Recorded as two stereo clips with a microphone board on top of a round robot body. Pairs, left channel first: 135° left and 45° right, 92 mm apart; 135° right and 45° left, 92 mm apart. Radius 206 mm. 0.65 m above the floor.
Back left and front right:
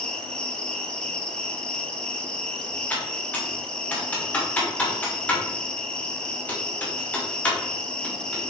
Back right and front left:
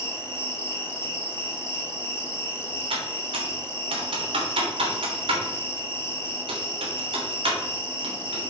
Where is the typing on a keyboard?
60° left, 2.5 m.